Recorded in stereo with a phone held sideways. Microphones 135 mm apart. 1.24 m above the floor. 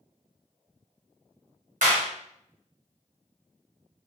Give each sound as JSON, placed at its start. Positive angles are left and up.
{"t": 1.8, "sound": "a clap", "side_deg": -80, "distance_m": 1.0}